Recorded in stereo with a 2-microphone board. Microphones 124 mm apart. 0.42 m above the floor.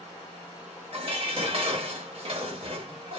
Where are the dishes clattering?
50° right (ahead or behind), 0.9 m.